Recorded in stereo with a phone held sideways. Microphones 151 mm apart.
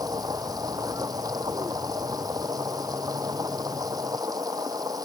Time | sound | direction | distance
0.0 | a machine running | 25° right (ahead or behind) | ?